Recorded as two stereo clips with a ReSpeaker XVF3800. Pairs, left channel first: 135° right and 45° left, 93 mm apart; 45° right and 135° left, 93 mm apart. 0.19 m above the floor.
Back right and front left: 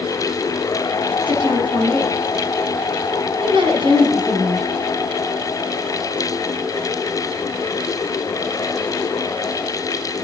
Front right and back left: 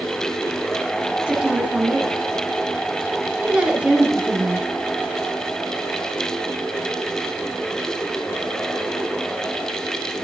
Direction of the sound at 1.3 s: 60° left.